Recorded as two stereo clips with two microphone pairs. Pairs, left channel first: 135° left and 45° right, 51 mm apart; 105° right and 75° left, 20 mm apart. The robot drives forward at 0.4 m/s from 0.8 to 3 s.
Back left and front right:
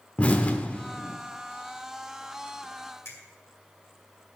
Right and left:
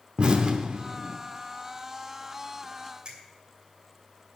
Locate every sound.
0.2 s an explosion: 75° left, 0.9 m; by 1.2 s 85° left, 0.9 m
3.0 s a finger snap: 110° left, 2.5 m